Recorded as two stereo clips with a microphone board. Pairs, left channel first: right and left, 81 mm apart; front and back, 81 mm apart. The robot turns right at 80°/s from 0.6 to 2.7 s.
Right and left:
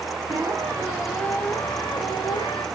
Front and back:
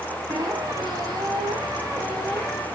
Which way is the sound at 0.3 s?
135° left.